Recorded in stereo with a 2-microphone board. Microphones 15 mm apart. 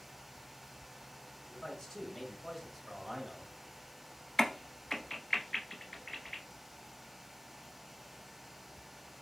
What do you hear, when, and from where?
1.5 s a man speaking: 40° left (ahead or behind), 1.6 m; by 3.5 s 30° right (ahead or behind), 1.4 m
4.4 s a crack: 25° left (ahead or behind), 0.5 m